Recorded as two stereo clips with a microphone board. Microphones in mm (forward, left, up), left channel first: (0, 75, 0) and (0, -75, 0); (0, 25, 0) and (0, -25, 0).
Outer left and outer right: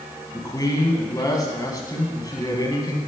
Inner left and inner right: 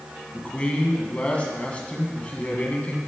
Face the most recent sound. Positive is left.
turn(degrees=25)  # may be behind; listen again after turning